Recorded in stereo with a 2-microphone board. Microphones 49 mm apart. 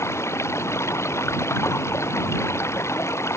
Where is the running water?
70° left (ahead or behind).